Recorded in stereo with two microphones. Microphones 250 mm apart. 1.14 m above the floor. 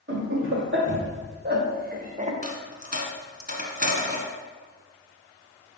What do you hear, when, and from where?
0.1 s laughter: 50° right (ahead or behind), 2.5 m; by 2.3 s 25° right (ahead or behind), 1.2 m
2.4 s a dropped coin: 35° right (ahead or behind), 1.5 m